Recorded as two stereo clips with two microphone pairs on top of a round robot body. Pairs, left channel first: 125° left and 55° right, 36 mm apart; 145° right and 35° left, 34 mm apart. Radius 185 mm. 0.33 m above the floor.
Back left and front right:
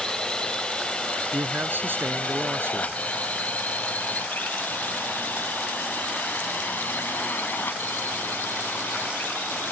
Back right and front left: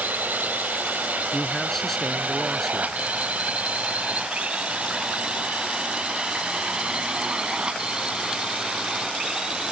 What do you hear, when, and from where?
0.0 s a drone: 55° left; by 9.7 s 100° left
1.3 s a man speaking: 65° right